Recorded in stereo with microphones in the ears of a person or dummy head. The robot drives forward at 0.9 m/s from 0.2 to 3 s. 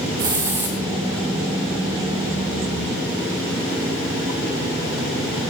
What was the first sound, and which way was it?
A hiss, 15° right (ahead or behind).